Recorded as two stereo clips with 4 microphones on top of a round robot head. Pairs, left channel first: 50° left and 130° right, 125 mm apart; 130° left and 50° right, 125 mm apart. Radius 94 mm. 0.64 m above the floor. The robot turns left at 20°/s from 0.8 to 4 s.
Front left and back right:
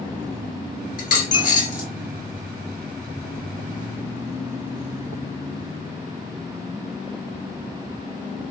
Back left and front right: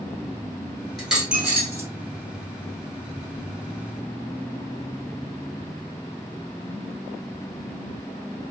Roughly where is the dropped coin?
Ahead left.